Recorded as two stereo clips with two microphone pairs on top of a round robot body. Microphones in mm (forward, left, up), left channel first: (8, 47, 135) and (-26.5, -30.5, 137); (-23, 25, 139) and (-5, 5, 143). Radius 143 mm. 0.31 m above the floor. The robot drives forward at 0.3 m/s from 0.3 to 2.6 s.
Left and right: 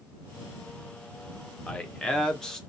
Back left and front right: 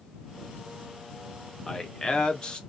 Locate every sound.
1.7 s a man speaking: 125° left, 0.9 m; by 2.6 s 145° left, 1.0 m